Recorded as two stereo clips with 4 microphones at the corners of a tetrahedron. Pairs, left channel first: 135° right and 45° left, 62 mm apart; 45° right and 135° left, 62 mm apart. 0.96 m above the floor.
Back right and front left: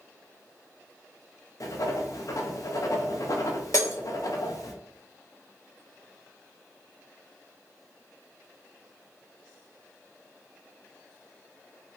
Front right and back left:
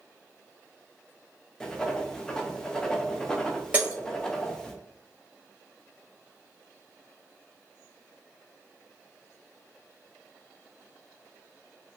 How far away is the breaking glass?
About 1.2 m.